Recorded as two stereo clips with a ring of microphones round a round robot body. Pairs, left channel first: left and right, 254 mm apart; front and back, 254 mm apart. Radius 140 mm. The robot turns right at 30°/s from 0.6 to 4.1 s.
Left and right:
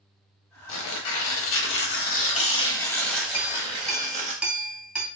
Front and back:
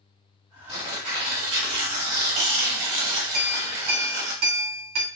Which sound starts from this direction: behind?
A clink, at 3.3 s.